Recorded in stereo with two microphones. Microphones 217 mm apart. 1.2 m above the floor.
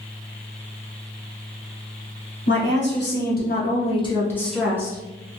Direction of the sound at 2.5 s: 60° left (ahead or behind).